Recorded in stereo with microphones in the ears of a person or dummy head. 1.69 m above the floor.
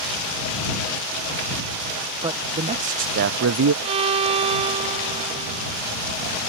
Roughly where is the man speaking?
Right.